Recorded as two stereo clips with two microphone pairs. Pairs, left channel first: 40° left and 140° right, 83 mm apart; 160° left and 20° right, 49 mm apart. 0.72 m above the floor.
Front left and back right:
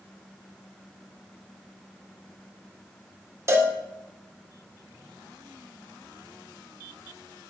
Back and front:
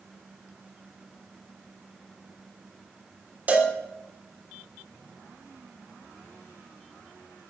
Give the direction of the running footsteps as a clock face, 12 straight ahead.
I don't hear running footsteps.